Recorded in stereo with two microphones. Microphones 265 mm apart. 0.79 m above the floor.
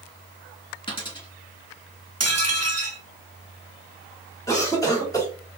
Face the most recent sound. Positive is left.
turn(degrees=10)  # may be behind; listen again after turning